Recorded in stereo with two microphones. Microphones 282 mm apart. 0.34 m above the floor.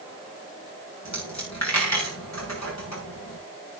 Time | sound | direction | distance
1.1 | a dropped coin | 85° left | 6.5 m